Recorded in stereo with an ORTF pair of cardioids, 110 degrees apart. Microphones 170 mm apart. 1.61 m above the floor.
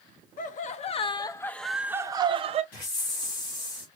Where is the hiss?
55° left, 3 m.